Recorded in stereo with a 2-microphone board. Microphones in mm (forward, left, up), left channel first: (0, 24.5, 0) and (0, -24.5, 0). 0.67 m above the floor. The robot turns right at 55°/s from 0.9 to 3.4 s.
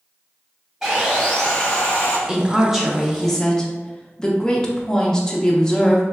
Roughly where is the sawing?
Ahead.